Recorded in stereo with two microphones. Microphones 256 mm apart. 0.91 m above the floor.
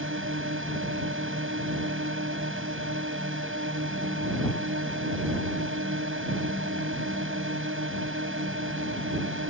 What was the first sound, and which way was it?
A drone, 50° right (ahead or behind).